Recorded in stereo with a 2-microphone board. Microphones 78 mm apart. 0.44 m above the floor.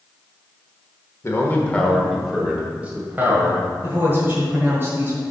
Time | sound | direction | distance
1.2 | a man speaking | 35° left (ahead or behind) | 1.2 m
3.8 | a woman speaking | 30° right (ahead or behind) | 1.9 m